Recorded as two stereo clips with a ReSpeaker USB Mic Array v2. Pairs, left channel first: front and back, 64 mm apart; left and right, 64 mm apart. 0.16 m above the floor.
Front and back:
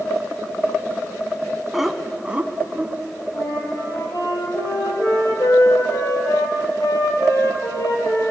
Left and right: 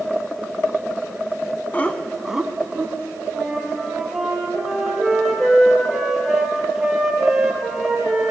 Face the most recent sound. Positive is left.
turn(degrees=-5)